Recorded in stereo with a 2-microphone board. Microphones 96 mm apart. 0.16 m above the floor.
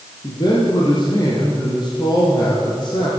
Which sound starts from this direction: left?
A man speaking, at 0.2 s.